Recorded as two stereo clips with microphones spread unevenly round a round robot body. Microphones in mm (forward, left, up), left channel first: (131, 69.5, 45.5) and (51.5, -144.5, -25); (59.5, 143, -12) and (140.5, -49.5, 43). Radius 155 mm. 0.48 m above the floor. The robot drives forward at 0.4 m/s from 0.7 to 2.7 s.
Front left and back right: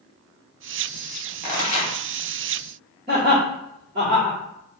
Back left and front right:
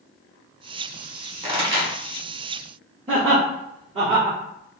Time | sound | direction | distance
1.4 | a pop | 5° left | 1.3 m
3.1 | laughter | 135° right | 1.3 m